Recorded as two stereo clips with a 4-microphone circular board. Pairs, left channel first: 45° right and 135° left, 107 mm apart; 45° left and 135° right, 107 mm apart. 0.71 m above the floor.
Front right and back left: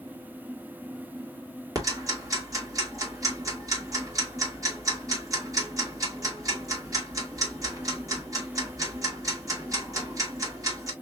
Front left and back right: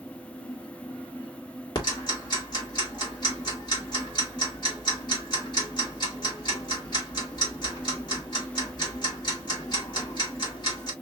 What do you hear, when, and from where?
1.8 s ticking: 85° left, 2.0 m